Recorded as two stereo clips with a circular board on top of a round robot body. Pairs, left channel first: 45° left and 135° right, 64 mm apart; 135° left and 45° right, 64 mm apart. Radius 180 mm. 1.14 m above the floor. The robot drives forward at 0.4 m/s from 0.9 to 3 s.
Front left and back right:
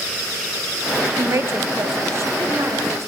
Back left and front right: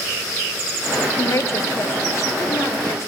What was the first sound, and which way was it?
A woman speaking, 175° left.